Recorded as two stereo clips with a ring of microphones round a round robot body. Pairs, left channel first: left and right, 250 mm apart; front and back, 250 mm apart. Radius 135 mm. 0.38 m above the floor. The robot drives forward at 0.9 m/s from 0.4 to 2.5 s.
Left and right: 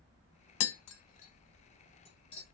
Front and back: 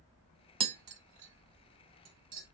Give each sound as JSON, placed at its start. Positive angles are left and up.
{"t": 0.6, "sound": "tapping", "azimuth_deg": 110, "distance_m": 0.6}